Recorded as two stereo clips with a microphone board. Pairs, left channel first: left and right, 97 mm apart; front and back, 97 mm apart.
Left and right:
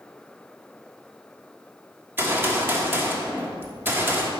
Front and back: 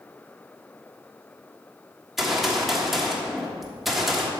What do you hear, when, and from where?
2.2 s a gunshot: 95° right, 1.4 m